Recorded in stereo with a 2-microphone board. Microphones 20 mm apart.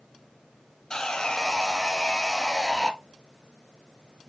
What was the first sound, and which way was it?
Sawing, 30° left (ahead or behind).